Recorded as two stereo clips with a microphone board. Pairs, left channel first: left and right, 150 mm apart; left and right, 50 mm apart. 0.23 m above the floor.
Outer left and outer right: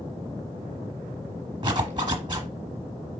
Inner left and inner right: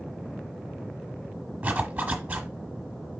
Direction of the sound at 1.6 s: 30° right (ahead or behind).